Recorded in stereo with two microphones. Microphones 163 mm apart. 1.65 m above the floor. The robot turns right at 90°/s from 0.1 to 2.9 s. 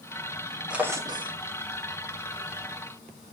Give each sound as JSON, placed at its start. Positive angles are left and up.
{"t": 0.7, "sound": "a drawer", "azimuth_deg": -170, "distance_m": 1.1}